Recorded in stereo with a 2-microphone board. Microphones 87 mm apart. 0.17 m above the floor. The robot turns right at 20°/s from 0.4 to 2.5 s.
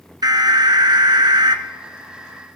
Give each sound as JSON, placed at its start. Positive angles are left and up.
{"t": 0.2, "sound": "an alarm", "side_deg": -50, "distance_m": 1.4}